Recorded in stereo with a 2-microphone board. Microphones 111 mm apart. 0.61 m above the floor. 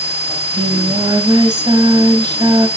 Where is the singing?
40° right (ahead or behind), 2.5 m.